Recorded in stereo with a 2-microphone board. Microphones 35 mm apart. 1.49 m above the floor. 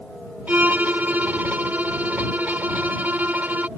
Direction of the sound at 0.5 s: 50° right (ahead or behind).